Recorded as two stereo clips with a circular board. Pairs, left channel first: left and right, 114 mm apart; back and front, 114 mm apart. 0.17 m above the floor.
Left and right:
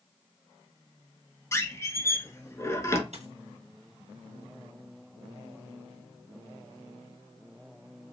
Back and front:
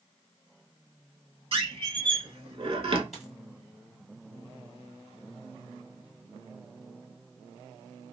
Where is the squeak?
30° left, 0.6 m.